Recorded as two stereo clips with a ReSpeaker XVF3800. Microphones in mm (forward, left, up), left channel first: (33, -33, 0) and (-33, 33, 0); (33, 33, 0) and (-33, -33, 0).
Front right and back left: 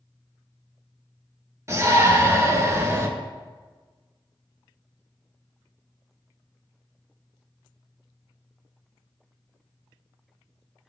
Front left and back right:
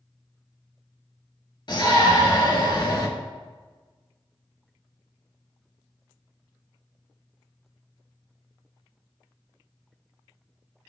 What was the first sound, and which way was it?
A shout, 80° left.